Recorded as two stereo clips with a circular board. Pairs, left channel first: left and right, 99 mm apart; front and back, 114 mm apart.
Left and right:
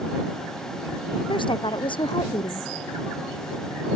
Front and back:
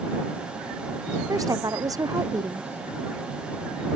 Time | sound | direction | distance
1.3 | a woman speaking | 120° left | ?